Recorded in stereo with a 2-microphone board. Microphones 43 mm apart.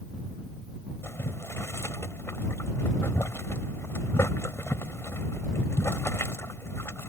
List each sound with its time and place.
1.0 s boiling: 85° left